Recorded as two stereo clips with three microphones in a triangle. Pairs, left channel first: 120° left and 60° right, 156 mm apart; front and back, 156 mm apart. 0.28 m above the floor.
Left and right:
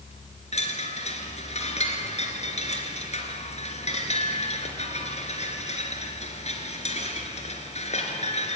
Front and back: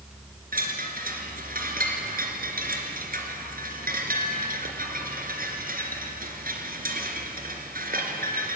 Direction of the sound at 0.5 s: 165° left.